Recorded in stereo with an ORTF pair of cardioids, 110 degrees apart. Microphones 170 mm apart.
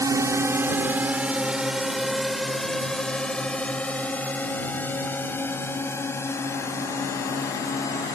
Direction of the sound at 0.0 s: 20° right.